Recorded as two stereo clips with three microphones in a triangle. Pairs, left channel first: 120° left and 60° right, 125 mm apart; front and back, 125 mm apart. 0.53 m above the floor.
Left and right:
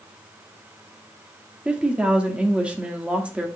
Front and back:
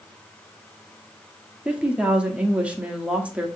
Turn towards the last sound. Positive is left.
turn(degrees=-120)